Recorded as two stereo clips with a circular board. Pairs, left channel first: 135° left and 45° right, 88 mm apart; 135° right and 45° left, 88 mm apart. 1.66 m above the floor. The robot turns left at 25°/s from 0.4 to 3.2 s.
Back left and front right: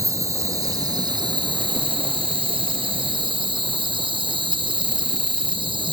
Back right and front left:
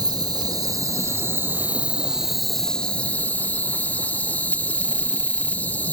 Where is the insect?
5° left, 1.6 m; by 6.0 s 65° right, 1.6 m.